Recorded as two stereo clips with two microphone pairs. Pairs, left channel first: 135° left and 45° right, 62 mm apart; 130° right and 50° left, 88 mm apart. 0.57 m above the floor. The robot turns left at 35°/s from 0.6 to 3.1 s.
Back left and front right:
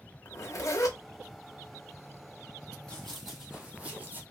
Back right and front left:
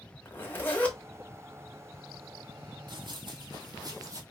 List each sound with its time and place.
0.2 s a zipper: 160° left, 0.9 m; by 1.0 s 150° left, 0.9 m
2.9 s running footsteps: 60° left, 1.0 m; by 4.2 s 5° left, 1.0 m